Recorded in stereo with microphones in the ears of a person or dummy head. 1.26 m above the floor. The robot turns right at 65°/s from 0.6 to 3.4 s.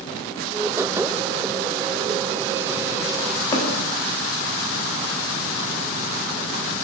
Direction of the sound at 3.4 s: 15° left (ahead or behind).